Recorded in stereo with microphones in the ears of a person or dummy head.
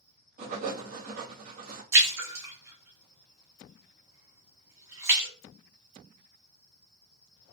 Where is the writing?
40° right (ahead or behind), 1.2 m.